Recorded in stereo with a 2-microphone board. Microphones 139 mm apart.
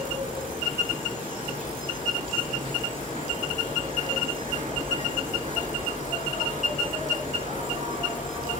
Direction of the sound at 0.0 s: 85° right.